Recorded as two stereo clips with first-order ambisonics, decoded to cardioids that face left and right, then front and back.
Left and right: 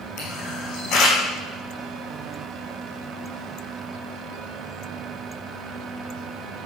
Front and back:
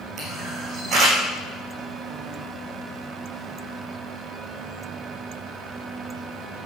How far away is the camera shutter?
About 6 m.